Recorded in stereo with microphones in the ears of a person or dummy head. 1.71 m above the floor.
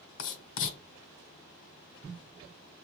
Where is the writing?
70° left (ahead or behind), 1.0 m.